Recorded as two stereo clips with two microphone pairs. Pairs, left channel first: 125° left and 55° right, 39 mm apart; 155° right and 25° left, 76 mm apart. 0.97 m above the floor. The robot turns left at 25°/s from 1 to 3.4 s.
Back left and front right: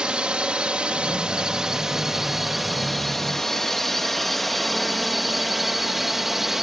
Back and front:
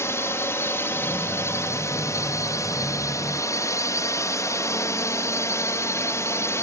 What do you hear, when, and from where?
0.0 s a drone: 110° right; by 6.6 s 130° right